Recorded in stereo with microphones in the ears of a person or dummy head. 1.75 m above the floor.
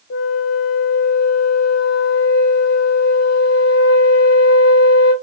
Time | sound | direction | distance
0.1 | a flute | 60° left (ahead or behind) | 0.8 m